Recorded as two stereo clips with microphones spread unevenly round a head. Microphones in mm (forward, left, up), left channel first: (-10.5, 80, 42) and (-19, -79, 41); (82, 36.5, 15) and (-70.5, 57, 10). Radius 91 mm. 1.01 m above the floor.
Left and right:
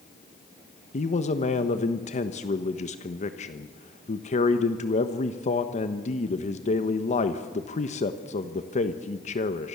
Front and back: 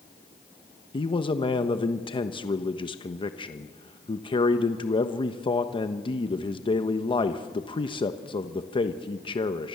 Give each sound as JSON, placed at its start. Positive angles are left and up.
{"t": 0.9, "sound": "a man speaking", "azimuth_deg": 45, "distance_m": 1.2}